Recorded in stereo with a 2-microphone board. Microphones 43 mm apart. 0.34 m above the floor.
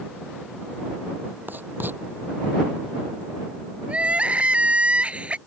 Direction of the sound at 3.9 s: 25° right (ahead or behind).